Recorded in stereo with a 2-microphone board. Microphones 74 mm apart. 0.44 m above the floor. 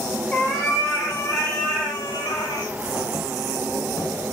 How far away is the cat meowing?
About 1.2 m.